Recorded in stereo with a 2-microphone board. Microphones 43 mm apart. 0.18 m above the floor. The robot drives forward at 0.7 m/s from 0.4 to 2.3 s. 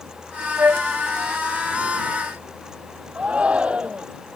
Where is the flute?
60° right (ahead or behind); by 0.9 s 55° right (ahead or behind).